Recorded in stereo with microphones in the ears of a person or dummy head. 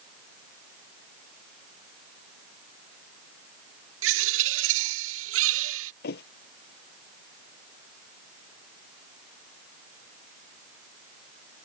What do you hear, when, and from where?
4.0 s a bird: 75° right (ahead or behind)
6.0 s a thud: 65° left (ahead or behind)